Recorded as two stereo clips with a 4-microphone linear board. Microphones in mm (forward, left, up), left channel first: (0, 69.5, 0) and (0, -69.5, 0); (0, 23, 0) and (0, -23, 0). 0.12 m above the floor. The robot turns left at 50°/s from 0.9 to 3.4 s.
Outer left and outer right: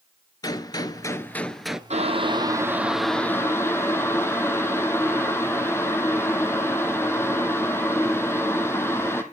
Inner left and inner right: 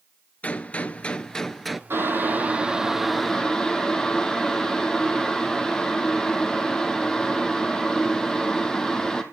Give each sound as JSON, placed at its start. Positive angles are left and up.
{"t": 0.4, "sound": "a gunshot", "azimuth_deg": 40, "distance_m": 0.7}
{"t": 1.9, "sound": "boiling", "azimuth_deg": -125, "distance_m": 1.6}